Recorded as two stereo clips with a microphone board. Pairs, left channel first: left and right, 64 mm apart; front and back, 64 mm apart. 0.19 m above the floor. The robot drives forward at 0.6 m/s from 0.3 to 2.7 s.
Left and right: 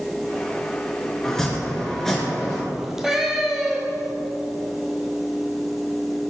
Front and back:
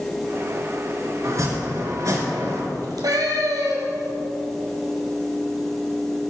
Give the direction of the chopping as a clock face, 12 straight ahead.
6 o'clock.